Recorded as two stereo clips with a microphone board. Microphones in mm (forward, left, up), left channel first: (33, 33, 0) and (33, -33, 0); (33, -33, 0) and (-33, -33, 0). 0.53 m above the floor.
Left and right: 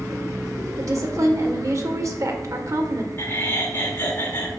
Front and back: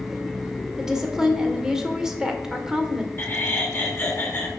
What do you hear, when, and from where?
0.8 s a woman speaking: 100° right, 1.8 m
3.2 s laughter: 45° left, 1.9 m